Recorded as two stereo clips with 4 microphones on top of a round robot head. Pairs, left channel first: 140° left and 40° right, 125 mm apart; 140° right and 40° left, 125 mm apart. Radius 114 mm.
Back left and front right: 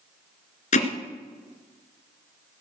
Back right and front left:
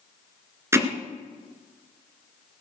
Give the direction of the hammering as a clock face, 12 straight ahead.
8 o'clock.